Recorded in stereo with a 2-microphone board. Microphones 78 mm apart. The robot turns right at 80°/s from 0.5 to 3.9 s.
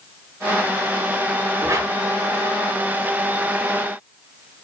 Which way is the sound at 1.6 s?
30° right (ahead or behind).